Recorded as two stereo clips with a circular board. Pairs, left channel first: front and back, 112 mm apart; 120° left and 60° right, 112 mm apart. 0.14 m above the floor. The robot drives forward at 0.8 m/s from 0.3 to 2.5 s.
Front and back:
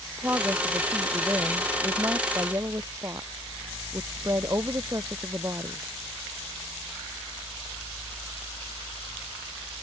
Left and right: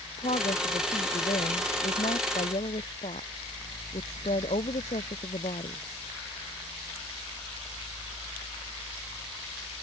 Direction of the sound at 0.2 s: 110° left.